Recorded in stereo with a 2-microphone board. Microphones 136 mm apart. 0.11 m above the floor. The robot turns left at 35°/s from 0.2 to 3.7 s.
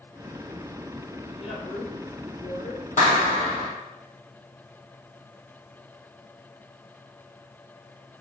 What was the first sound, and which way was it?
A woman speaking, 50° left (ahead or behind).